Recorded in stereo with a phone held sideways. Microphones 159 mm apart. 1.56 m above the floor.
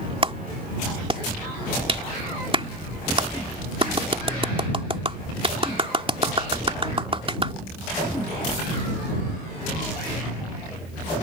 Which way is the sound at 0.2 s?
35° right (ahead or behind).